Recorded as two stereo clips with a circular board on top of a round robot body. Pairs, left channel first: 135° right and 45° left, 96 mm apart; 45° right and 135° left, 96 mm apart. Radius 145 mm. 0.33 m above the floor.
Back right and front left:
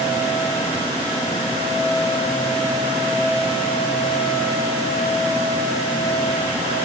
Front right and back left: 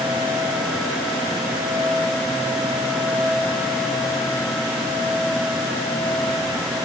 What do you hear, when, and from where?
Only background noise.